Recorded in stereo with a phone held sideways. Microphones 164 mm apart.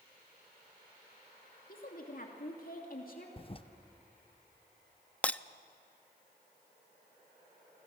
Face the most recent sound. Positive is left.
turn(degrees=10)  # may be behind; listen again after turning